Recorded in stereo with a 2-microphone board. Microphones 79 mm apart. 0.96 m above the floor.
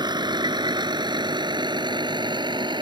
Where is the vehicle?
70° right (ahead or behind); by 2.8 s 75° right (ahead or behind).